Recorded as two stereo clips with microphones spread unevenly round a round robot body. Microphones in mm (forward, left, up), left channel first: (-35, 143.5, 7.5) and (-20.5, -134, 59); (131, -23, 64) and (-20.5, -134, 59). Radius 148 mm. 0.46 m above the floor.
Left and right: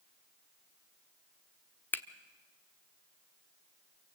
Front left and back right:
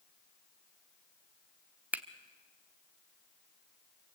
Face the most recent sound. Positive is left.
turn(degrees=145)